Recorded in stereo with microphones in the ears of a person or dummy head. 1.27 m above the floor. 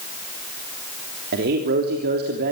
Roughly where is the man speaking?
Right.